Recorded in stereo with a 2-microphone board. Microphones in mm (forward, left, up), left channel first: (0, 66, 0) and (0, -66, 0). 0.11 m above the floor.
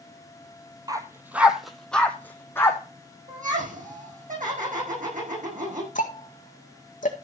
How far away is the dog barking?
About 1.2 m.